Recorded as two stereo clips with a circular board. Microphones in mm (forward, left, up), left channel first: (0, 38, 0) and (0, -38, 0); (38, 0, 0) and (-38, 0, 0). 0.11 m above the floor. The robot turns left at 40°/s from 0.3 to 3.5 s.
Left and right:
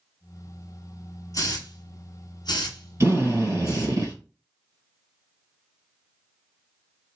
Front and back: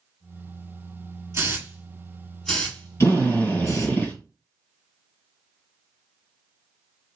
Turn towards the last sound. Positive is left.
turn(degrees=-65)